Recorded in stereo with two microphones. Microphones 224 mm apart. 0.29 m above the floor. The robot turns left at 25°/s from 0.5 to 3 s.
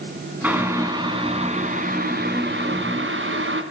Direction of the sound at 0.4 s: 10° right.